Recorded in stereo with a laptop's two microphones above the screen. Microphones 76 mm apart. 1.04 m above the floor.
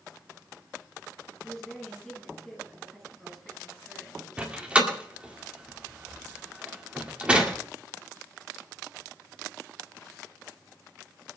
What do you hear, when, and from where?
1.4 s a woman speaking: centre (ahead or behind), 9.5 m
4.4 s a door slam: 15° right (ahead or behind), 1.9 m